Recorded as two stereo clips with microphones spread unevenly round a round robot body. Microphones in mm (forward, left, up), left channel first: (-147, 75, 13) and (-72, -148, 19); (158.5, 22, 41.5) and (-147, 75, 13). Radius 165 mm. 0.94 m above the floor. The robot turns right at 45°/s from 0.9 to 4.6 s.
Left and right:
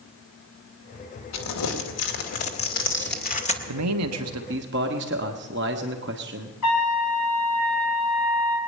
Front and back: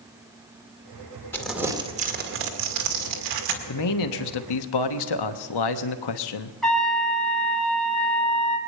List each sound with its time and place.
1.3 s crumpling: 75° left, 2 m; by 3.6 s 175° left, 2 m
3.7 s a man speaking: 55° right, 1.1 m; by 6.5 s 15° right, 1.1 m
6.6 s a trumpet: 80° left, 3.5 m